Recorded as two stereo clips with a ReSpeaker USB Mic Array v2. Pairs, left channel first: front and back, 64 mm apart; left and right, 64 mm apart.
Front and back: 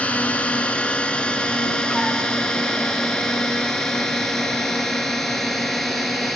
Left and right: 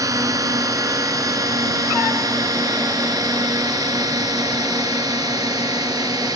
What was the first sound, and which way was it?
A drone, 65° right.